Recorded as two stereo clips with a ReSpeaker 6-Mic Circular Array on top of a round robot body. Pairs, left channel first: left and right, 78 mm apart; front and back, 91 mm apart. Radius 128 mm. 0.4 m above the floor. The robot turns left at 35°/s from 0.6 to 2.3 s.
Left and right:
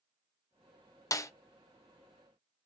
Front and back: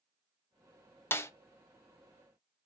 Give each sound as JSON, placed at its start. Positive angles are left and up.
{"t": 1.1, "sound": "a snare drum", "azimuth_deg": 60, "distance_m": 0.5}